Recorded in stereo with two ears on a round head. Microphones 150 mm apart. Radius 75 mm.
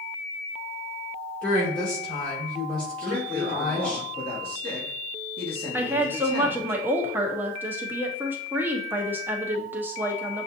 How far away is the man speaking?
About 1.8 m.